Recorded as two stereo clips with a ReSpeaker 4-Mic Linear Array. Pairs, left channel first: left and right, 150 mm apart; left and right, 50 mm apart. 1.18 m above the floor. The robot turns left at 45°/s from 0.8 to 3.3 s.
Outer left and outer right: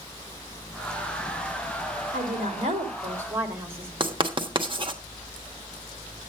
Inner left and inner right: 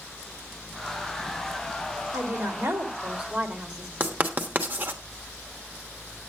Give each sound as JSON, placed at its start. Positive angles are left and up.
{"t": 2.1, "sound": "a woman speaking", "azimuth_deg": -110, "distance_m": 2.0}
{"t": 4.0, "sound": "writing", "side_deg": -35, "distance_m": 1.1}